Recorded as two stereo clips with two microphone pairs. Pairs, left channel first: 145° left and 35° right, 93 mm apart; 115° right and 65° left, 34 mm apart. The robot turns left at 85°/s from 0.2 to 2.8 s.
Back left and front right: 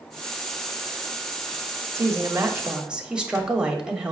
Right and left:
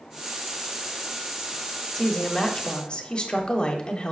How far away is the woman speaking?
About 1.0 m.